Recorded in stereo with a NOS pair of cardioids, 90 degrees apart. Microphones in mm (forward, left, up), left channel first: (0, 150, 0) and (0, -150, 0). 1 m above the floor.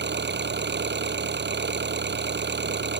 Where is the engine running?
35° right.